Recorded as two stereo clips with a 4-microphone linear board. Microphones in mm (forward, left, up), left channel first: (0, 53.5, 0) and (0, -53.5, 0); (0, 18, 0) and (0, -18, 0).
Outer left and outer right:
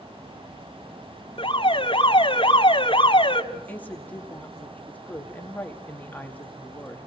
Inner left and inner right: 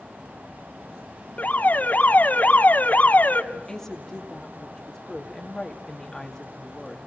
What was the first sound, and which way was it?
An alarm, 55° left (ahead or behind).